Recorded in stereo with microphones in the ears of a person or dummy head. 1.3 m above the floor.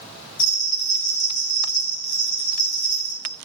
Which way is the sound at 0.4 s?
40° left (ahead or behind).